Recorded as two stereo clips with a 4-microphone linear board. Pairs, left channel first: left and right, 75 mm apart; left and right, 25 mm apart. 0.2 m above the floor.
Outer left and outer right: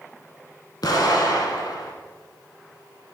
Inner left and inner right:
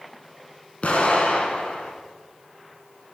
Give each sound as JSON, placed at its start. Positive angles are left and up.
{"t": 0.8, "sound": "an explosion", "side_deg": 65, "distance_m": 0.6}